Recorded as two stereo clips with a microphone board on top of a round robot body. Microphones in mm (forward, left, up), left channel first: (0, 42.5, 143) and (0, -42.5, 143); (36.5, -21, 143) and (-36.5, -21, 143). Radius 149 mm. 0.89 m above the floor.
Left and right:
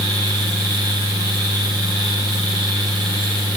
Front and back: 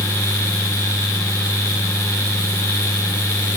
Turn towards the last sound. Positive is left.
No sound to turn to.